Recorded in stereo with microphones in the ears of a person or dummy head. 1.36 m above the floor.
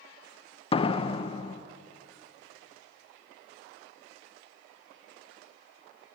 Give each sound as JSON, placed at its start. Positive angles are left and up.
{"t": 0.7, "sound": "a door slam", "side_deg": 25, "distance_m": 0.8}